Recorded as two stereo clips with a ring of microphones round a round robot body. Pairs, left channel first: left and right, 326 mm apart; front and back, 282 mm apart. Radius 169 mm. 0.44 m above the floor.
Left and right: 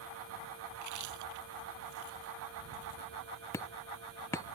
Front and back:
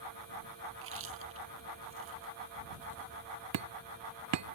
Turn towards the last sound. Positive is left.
turn(degrees=170)